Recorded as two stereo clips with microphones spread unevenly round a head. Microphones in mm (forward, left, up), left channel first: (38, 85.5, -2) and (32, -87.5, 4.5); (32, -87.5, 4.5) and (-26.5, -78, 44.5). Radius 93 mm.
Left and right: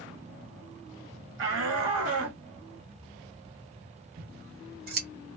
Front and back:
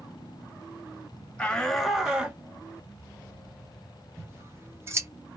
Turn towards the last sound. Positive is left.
turn(degrees=-135)